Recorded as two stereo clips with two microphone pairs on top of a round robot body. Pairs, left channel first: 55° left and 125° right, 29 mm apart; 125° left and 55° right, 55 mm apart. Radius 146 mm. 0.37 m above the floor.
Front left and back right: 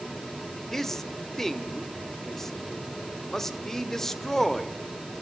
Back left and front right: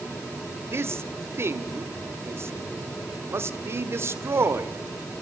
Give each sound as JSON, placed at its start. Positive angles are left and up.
{"t": 0.7, "sound": "a man speaking", "azimuth_deg": -25, "distance_m": 1.9}